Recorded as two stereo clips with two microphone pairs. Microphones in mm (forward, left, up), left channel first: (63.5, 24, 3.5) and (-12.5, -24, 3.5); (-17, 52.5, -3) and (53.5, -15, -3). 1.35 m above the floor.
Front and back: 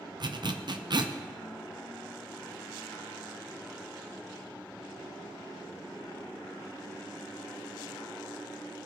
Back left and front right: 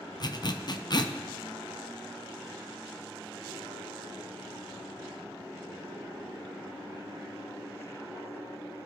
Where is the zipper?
Straight behind, 0.6 m.